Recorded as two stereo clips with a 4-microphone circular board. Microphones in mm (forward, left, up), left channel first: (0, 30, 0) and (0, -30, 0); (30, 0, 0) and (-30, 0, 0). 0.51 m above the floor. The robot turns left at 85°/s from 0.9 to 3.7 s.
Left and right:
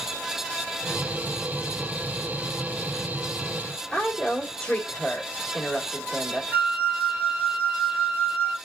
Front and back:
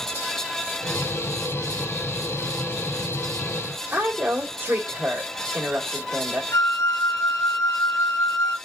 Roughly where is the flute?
Ahead right.